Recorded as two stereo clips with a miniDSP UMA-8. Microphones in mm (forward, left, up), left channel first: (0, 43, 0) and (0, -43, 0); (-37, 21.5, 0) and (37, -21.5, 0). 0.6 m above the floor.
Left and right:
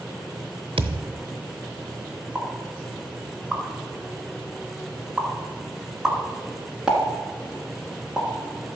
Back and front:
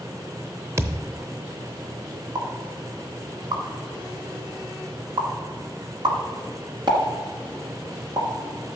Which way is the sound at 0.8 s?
85° right.